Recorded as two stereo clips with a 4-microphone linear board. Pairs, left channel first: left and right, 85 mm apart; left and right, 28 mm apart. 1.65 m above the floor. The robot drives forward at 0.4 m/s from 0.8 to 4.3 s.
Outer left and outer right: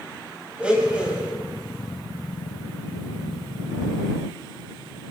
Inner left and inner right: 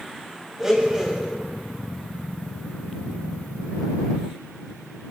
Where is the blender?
15° right (ahead or behind), 7 m.